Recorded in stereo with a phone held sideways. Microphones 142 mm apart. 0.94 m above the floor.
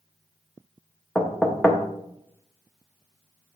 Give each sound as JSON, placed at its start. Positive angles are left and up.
{"t": 1.1, "sound": "knocking", "side_deg": 5, "distance_m": 0.8}